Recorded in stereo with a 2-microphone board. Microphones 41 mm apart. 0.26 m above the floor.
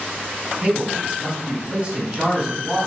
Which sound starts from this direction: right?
A man speaking, at 0.6 s.